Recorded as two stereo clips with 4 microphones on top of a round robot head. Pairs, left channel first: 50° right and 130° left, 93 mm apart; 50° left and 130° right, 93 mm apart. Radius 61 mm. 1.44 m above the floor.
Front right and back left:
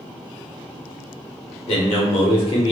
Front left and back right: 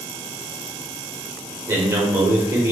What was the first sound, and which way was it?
A man speaking, 65° right.